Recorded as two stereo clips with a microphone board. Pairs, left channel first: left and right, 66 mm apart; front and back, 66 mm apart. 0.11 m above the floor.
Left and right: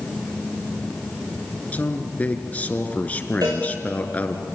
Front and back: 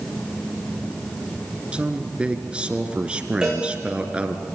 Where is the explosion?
No explosion in this recording.